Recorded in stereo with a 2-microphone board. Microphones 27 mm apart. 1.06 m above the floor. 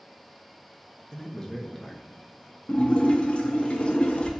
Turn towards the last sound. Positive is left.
turn(degrees=45)  # may be behind; listen again after turning